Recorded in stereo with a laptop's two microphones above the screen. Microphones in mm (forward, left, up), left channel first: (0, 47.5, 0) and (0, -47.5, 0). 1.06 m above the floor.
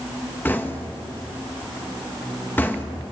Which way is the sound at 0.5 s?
20° left (ahead or behind).